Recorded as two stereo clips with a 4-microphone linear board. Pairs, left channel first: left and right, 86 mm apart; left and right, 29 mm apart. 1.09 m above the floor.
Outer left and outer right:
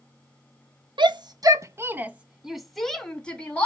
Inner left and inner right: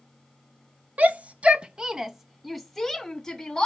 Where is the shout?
65° right (ahead or behind), 0.9 m; by 3.6 s 15° left (ahead or behind), 1.7 m.